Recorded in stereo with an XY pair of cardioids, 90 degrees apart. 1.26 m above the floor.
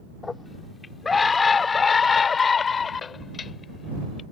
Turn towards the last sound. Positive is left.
turn(degrees=50)